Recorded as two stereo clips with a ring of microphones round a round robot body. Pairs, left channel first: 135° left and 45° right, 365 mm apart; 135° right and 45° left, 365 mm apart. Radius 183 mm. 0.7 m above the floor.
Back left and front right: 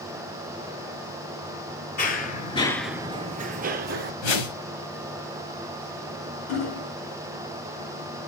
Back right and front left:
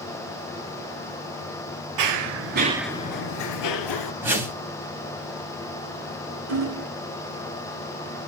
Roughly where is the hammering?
Left.